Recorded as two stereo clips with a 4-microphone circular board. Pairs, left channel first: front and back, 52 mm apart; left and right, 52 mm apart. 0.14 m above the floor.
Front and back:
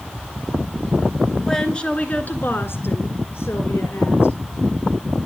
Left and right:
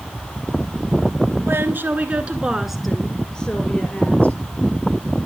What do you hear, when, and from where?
1.4 s a woman speaking: 75° right, 1.6 m; by 4.4 s 30° left, 2.5 m